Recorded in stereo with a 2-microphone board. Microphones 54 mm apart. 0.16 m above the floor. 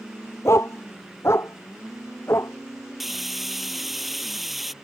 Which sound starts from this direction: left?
A dog barking, at 0.5 s.